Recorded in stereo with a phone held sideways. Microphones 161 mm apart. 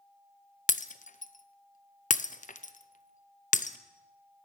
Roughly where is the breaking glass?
Left.